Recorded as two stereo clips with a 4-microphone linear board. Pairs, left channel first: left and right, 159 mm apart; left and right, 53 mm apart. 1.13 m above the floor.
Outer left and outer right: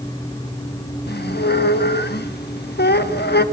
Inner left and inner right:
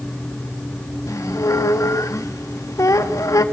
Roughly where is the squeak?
Left.